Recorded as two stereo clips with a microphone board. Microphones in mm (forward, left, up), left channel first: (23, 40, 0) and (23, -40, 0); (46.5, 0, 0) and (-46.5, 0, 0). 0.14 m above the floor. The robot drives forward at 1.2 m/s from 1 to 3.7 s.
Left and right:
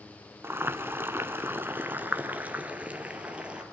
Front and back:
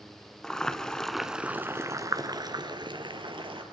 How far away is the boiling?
About 1.5 m.